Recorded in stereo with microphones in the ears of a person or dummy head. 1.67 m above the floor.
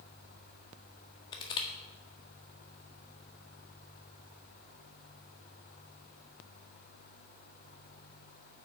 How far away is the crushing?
About 1.6 m.